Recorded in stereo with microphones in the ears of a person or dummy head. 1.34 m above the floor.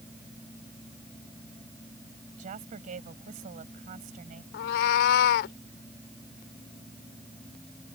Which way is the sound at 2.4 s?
45° right (ahead or behind).